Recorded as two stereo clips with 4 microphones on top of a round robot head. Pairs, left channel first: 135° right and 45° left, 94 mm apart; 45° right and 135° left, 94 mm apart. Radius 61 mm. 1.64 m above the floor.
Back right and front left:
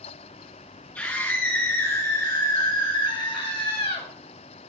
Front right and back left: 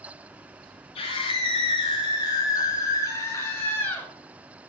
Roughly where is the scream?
Ahead right.